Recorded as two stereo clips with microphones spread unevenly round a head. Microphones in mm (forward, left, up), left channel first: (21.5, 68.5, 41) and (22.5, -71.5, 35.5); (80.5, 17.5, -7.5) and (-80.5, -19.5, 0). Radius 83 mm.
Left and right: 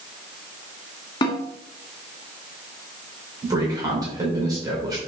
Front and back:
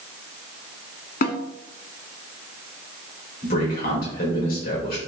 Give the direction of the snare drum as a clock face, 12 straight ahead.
11 o'clock.